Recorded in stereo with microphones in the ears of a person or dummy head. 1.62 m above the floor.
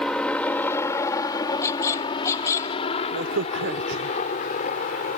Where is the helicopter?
Centre (ahead or behind); by 5.2 s 40° left (ahead or behind).